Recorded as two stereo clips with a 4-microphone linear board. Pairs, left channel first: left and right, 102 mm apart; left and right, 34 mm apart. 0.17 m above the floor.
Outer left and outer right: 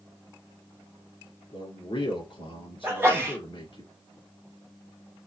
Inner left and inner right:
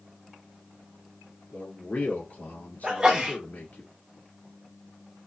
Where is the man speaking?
55° left (ahead or behind), 2.5 m.